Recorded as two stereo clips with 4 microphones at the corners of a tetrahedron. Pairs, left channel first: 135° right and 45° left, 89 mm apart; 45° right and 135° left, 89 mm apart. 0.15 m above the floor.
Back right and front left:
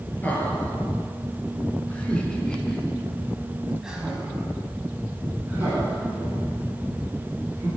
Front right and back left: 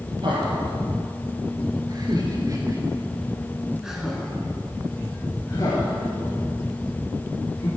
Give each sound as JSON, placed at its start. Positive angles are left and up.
{"t": 0.2, "sound": "laughter", "azimuth_deg": 155, "distance_m": 2.5}